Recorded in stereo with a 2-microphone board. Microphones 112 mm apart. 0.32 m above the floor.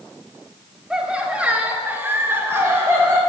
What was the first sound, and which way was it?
Laughter, 5° right (ahead or behind).